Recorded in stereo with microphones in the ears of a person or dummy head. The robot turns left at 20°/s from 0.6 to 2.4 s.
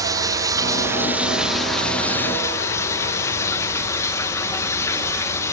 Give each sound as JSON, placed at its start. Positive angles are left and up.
{"t": 0.0, "sound": "running water", "azimuth_deg": -165, "distance_m": 1.1}